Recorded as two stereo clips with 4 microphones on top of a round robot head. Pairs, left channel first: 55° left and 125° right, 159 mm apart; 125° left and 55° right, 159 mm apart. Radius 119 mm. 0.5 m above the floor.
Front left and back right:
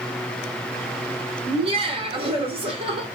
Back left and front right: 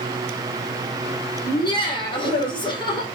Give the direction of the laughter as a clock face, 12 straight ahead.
6 o'clock.